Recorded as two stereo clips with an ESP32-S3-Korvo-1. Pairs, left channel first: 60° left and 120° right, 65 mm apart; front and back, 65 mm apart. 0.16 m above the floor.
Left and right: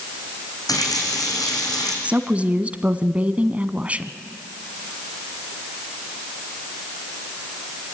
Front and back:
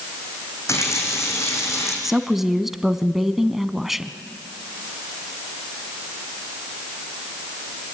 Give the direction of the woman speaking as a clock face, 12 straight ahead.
3 o'clock.